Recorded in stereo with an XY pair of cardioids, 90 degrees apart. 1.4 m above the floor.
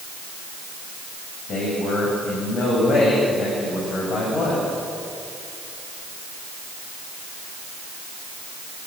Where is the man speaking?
65° left, 7.5 m.